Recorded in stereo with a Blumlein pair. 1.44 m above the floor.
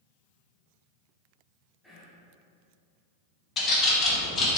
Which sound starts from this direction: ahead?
Whispering, at 1.8 s.